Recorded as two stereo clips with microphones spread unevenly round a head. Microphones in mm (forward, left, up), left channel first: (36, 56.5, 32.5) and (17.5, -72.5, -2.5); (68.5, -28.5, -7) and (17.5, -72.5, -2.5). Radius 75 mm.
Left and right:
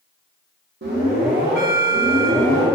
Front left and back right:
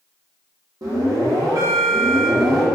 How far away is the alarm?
About 1.4 m.